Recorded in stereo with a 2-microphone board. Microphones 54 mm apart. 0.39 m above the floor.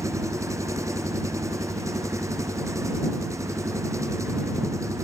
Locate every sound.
0.0 s an engine running: 70° right (ahead or behind)